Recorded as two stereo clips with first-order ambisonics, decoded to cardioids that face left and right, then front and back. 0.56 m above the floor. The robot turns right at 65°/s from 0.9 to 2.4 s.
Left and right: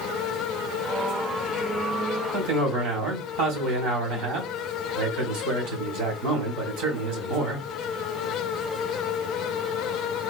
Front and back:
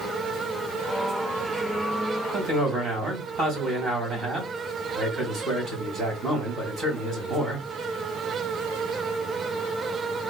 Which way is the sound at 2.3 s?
115° right.